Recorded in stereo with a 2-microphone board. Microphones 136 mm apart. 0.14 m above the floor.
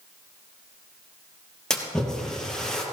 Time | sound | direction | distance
1.7 | a splash | 5° left (ahead or behind) | 3 m